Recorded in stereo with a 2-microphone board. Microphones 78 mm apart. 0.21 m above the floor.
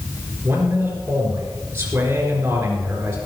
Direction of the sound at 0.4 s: 25° right (ahead or behind).